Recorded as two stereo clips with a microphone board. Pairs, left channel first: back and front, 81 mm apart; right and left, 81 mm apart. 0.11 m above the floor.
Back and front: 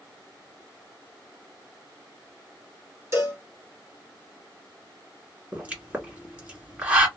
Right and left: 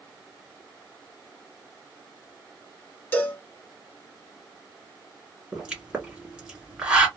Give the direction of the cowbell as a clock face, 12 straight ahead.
1 o'clock.